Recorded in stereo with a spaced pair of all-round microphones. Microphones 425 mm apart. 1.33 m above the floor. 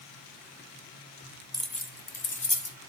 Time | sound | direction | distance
1.5 | keys jangling | 10° right (ahead or behind) | 0.6 m